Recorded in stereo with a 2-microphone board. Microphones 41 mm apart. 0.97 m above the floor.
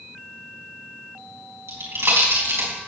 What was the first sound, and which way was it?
A pop, 85° right.